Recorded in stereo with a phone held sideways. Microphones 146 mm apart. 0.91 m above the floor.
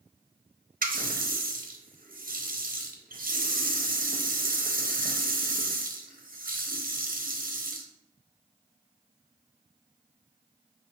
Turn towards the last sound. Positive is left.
turn(degrees=-75)  # may be behind; listen again after turning